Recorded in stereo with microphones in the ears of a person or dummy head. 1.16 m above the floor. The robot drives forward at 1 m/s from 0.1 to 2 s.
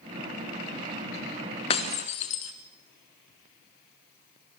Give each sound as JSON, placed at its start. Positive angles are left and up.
{"t": 1.7, "sound": "breaking glass", "side_deg": 35, "distance_m": 1.3}